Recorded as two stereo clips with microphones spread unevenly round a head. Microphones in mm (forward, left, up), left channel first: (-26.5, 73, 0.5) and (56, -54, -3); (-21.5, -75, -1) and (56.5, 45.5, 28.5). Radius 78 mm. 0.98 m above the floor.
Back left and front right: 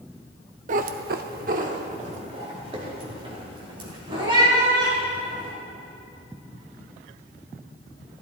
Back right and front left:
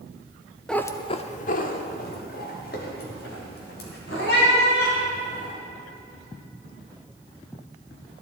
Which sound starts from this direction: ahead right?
A cat meowing, at 0.7 s.